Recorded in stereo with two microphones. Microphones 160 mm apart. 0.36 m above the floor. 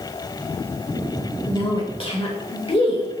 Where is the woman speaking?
35° left (ahead or behind), 1.1 m.